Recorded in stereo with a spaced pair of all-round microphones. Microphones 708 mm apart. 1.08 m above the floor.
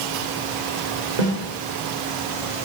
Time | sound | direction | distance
1.2 | a snare drum | 80° right | 1.9 m